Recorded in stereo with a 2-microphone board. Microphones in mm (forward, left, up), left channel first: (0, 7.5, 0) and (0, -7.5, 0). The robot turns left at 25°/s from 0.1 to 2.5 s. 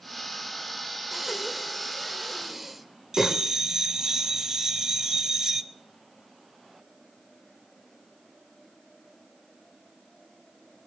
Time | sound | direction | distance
1.1 | breathing | 25° right (ahead or behind) | 1.2 m
3.1 | a bell | 45° right (ahead or behind) | 0.8 m